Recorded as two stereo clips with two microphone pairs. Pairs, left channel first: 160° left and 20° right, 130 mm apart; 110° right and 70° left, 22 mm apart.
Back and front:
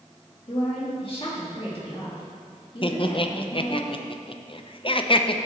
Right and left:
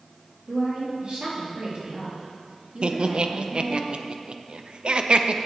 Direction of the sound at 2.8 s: 115° left.